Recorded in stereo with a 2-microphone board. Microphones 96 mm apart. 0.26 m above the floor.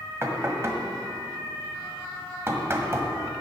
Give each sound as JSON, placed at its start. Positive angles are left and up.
{"t": 0.2, "sound": "knocking", "side_deg": -30, "distance_m": 1.3}